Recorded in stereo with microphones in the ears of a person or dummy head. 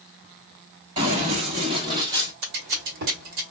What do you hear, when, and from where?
1.0 s running footsteps: 35° right (ahead or behind), 1.7 m; by 2.3 s 15° right (ahead or behind), 1.5 m
2.4 s scissors: 50° right (ahead or behind), 1.4 m